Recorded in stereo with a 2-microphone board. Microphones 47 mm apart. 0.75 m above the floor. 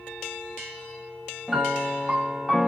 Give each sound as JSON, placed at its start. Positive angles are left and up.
{"t": 1.5, "sound": "a piano", "side_deg": -10, "distance_m": 0.6}